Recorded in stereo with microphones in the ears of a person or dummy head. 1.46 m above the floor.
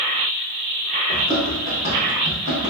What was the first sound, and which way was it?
Running footsteps, 30° left (ahead or behind).